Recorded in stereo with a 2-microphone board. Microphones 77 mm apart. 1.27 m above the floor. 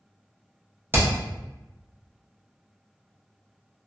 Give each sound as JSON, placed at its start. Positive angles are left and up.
{"t": 0.9, "sound": "hammering", "side_deg": -30, "distance_m": 0.8}